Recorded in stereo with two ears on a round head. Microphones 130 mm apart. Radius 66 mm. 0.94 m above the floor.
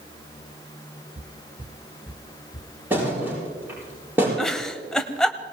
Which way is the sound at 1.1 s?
55° right (ahead or behind).